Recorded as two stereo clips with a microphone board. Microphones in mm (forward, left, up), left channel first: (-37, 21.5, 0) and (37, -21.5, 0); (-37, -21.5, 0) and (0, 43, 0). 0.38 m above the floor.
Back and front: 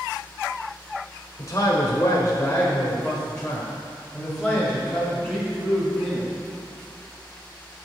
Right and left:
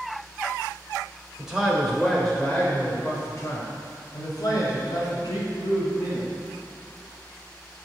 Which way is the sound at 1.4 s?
140° left.